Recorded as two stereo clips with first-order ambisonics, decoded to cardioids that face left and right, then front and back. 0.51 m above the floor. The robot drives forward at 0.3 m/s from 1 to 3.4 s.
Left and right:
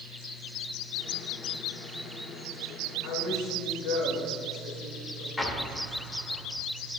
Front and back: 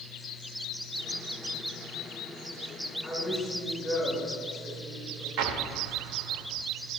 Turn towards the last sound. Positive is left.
turn(degrees=170)